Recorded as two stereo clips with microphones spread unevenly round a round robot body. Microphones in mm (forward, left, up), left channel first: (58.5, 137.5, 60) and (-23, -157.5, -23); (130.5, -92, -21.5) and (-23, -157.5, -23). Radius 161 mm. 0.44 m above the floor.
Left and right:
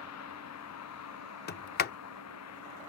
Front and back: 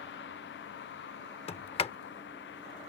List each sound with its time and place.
0.0 s a vehicle: 35° left
1.5 s a sliding door: 10° left